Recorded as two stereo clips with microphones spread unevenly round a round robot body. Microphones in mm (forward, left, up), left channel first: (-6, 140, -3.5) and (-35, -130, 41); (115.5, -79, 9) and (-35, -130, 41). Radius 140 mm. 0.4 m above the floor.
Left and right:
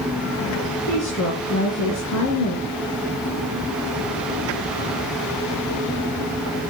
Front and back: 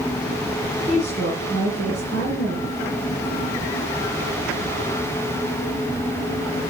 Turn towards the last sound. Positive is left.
turn(degrees=110)